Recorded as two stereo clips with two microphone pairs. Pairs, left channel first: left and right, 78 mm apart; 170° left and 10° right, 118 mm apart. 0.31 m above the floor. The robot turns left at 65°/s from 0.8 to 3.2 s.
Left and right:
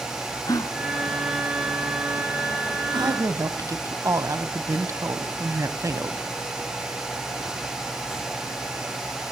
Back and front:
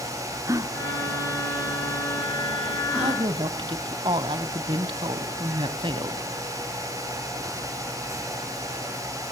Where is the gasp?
50° left, 3.5 m; by 3.2 s 105° right, 3.5 m.